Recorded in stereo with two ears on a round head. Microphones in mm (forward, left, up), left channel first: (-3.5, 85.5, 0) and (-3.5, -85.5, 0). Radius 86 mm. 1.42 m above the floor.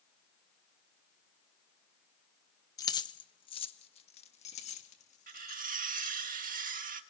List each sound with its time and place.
2.8 s keys jangling: 20° left (ahead or behind), 0.9 m; by 6.3 s 40° left (ahead or behind), 3 m
5.3 s cutlery clinking: 45° right (ahead or behind), 1.7 m